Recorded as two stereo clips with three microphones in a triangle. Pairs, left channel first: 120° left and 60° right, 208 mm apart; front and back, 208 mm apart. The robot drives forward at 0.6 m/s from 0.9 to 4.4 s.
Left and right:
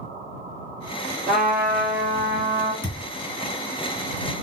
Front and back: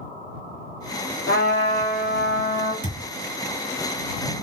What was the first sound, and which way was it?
A trumpet, 20° right.